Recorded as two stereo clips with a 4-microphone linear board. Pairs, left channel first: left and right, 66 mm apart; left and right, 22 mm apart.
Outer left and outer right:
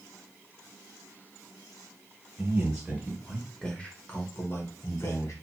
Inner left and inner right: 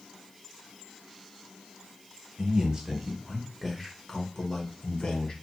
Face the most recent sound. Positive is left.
turn(degrees=45)  # may be behind; listen again after turning